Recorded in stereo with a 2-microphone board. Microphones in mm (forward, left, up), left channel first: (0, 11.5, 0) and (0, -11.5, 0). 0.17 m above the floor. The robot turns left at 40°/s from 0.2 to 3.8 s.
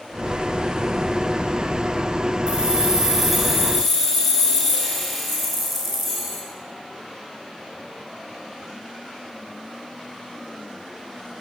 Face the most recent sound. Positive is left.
turn(degrees=175)